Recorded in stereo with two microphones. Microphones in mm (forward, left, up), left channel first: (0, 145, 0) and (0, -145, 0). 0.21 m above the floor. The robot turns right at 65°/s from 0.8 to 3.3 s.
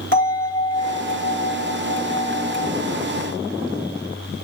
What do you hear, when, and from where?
0.1 s a bell: 130° right, 2.0 m; by 2.7 s 5° right, 2.0 m